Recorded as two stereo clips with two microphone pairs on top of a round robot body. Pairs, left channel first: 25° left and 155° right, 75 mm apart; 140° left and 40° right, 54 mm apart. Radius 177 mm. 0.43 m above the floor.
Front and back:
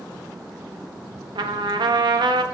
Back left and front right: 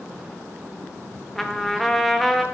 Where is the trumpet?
135° right, 0.8 m.